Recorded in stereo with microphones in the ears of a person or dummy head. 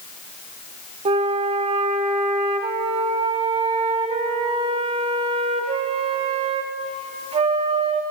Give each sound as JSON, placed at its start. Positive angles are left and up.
{"t": 1.1, "sound": "a flute", "side_deg": -25, "distance_m": 0.6}